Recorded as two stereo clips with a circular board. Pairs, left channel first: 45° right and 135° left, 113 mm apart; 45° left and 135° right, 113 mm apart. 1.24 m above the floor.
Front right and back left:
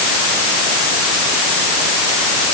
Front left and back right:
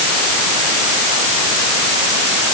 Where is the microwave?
I don't hear a microwave.